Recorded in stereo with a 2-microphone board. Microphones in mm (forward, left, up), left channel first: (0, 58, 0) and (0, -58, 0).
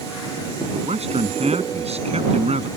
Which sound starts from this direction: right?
A man speaking, at 0.7 s.